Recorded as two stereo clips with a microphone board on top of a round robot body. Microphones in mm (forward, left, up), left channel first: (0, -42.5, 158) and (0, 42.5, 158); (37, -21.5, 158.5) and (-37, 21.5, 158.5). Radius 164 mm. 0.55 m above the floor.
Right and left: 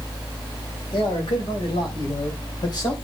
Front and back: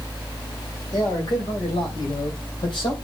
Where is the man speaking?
70° right, 4 m; by 3.0 s 50° right, 3.5 m.